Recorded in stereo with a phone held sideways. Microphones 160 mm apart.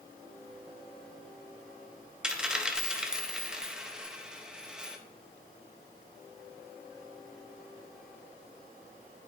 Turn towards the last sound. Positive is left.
turn(degrees=-5)  # may be behind; listen again after turning